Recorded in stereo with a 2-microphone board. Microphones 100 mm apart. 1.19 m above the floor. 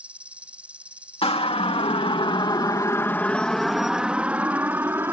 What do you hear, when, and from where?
0.0 s an insect: 10° right (ahead or behind)
1.2 s a siren: 75° left (ahead or behind); by 5.1 s 25° right (ahead or behind)